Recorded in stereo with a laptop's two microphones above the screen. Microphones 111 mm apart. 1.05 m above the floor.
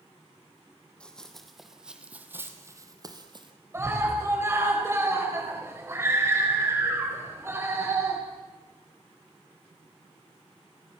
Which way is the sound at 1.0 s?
10° left (ahead or behind).